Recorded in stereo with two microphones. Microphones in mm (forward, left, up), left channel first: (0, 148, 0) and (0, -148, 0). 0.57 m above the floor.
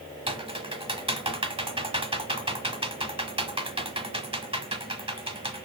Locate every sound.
0.3 s typing on a keyboard: 20° right (ahead or behind), 0.9 m